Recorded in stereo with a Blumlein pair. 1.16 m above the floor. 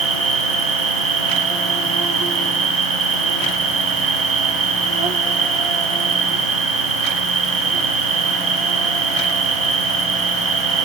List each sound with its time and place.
0.0 s an insect: 25° right, 0.9 m